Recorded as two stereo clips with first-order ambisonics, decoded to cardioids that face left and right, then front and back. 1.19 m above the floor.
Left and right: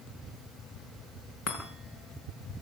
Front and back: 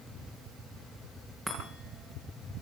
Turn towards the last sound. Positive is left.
turn(degrees=95)